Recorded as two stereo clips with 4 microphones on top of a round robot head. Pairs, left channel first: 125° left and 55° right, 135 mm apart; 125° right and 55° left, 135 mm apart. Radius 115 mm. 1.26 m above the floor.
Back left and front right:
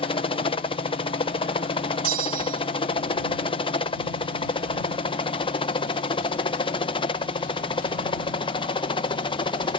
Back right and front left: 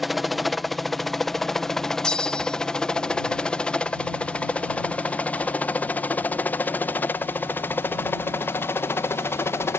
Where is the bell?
40° right.